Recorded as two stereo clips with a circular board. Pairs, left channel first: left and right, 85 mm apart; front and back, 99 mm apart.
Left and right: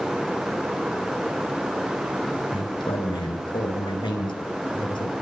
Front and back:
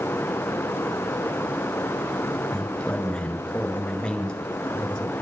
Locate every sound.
2.5 s a man speaking: 80° left, 5 m